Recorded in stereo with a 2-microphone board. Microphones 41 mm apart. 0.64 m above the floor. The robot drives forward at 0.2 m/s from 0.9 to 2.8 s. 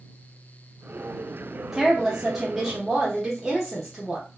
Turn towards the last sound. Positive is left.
turn(degrees=-5)  # may be behind; listen again after turning